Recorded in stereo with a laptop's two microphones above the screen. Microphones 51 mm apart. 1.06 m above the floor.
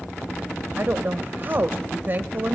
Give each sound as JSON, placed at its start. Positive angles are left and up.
{"t": 0.8, "sound": "a woman speaking", "side_deg": -55, "distance_m": 0.8}